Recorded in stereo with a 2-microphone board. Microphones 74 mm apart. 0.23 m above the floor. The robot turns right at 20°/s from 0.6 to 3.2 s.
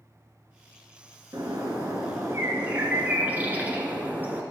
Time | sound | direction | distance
1.3 | a bird | 60° right | 1.3 m